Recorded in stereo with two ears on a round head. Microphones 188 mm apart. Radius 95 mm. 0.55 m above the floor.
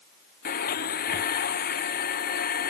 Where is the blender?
45° left (ahead or behind).